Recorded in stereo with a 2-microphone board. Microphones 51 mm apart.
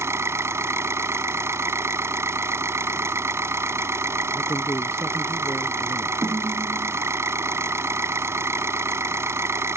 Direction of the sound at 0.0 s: 60° right (ahead or behind).